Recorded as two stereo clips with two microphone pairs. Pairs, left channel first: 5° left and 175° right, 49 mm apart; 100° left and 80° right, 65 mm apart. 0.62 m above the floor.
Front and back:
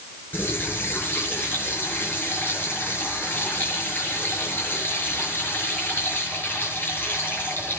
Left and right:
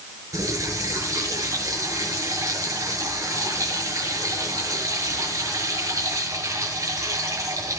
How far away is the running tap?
About 7 m.